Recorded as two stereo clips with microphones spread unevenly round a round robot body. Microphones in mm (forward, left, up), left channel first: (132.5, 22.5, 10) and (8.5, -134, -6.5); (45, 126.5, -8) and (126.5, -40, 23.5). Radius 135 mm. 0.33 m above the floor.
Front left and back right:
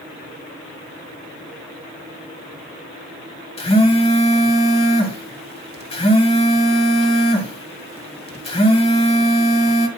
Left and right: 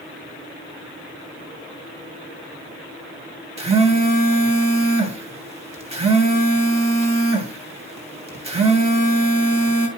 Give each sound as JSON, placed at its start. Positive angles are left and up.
{"t": 3.6, "sound": "a phone buzzing", "azimuth_deg": -5, "distance_m": 2.5}